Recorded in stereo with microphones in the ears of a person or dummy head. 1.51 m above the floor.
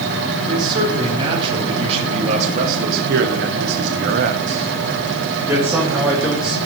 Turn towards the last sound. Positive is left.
turn(degrees=-5)  # may be behind; listen again after turning